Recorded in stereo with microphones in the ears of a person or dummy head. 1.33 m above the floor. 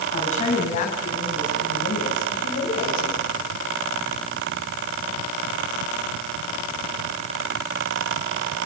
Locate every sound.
0.1 s a woman speaking: 40° left (ahead or behind), 9 m; by 3.3 s 70° left (ahead or behind), 6 m